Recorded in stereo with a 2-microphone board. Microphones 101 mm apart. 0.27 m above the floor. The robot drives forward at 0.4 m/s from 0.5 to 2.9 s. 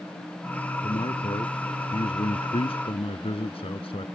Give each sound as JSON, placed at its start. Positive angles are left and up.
{"t": 0.8, "sound": "a man speaking", "side_deg": 65}